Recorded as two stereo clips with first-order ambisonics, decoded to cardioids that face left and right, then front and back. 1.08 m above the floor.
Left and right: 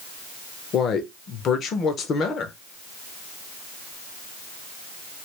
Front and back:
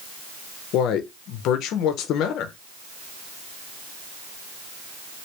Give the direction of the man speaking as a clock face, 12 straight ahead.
11 o'clock.